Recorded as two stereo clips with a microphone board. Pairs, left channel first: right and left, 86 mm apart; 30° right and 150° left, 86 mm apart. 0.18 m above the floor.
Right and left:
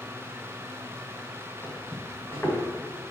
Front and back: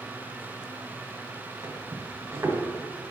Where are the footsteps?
150° right, 2.5 m.